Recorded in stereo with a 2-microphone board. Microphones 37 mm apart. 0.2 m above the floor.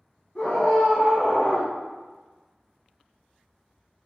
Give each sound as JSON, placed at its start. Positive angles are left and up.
{"t": 0.3, "sound": "a scream", "side_deg": 30, "distance_m": 1.3}